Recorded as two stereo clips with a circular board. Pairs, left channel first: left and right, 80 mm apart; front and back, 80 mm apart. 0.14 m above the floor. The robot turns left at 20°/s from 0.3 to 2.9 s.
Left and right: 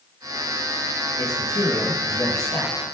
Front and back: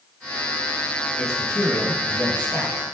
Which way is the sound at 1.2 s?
90° left.